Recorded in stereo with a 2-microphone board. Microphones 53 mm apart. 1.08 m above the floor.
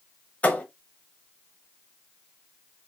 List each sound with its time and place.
0.4 s a thud: 25° left (ahead or behind), 1.0 m